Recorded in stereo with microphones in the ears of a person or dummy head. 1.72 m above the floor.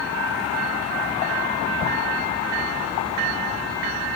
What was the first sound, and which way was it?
Ticking, 70° left (ahead or behind).